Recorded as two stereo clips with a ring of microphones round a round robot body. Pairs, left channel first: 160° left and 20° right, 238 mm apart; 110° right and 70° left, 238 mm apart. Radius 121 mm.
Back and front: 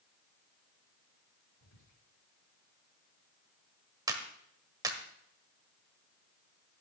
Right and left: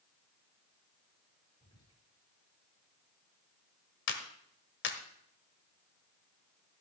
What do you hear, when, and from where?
1.6 s whispering: 175° left, 6.5 m
4.1 s a clap: 95° right, 1.4 m